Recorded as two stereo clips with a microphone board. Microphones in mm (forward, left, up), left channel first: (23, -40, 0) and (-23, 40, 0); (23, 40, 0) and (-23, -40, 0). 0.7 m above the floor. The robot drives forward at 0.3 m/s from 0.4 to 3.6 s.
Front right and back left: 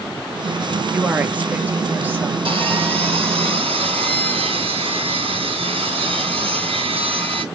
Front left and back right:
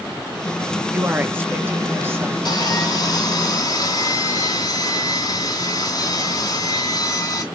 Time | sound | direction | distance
0.9 | a woman speaking | 175° right | 0.9 m
2.5 | sawing | 100° left | 3 m